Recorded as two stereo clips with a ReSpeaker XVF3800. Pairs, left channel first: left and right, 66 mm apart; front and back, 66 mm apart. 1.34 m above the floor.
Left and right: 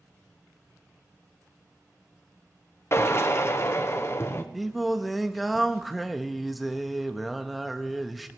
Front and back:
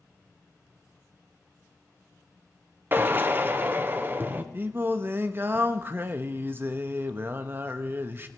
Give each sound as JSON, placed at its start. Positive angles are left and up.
{"t": 2.9, "sound": "a drill", "azimuth_deg": 130, "distance_m": 0.8}
{"t": 4.5, "sound": "singing", "azimuth_deg": 180, "distance_m": 0.7}